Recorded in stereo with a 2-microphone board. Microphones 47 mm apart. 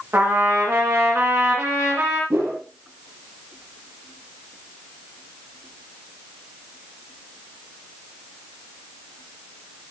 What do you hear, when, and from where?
0.1 s a trumpet: 50° right (ahead or behind), 9 m
2.3 s a whoosh: 60° right (ahead or behind), 6 m